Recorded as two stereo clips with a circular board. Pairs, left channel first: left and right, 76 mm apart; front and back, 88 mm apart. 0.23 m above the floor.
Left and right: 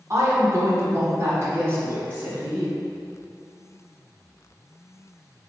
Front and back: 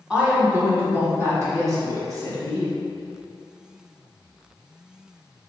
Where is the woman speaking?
100° right, 1.3 m; by 2.7 s 150° right, 2 m.